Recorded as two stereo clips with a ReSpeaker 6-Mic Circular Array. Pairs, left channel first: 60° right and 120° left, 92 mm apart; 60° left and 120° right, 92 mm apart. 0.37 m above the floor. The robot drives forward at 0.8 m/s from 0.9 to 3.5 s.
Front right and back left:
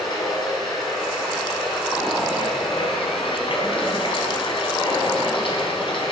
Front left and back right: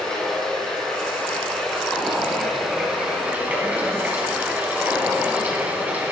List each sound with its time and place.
0.0 s running water: 25° right, 4 m; by 6.1 s 50° right, 2.5 m